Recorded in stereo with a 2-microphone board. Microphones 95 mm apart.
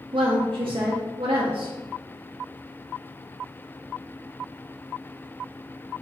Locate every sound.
0.1 s a woman speaking: 60° right (ahead or behind), 0.9 m